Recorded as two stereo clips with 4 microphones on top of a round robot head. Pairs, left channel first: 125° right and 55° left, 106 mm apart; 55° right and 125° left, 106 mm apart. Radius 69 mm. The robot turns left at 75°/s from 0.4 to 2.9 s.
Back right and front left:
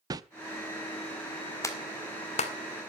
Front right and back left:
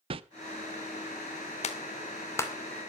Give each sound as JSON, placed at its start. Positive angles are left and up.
{"t": 0.1, "sound": "a whoosh", "azimuth_deg": 105, "distance_m": 0.8}
{"t": 1.6, "sound": "a clap", "azimuth_deg": -65, "distance_m": 2.0}